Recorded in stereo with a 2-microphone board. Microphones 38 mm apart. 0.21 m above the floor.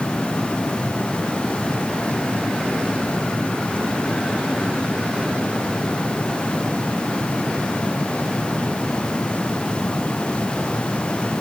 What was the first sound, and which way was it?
Only background noise.